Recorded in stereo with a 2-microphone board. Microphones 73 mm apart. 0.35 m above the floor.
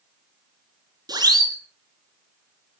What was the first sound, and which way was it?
A siren, 60° right (ahead or behind).